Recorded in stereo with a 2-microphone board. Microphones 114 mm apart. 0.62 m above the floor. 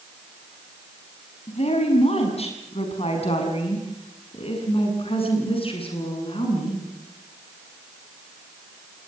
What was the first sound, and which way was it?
A woman speaking, 65° left (ahead or behind).